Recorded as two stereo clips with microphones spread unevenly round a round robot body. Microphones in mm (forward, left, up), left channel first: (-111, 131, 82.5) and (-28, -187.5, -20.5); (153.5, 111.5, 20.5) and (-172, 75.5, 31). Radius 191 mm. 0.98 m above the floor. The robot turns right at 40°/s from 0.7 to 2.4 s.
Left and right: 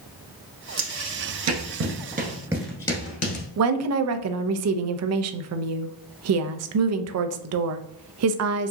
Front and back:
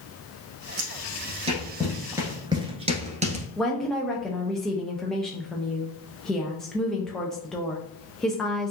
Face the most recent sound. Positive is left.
turn(degrees=-80)